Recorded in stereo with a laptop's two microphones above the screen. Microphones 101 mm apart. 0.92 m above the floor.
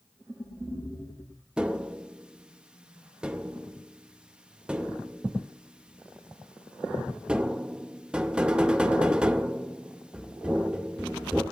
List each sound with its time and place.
1.6 s tapping: 10° right (ahead or behind), 0.5 m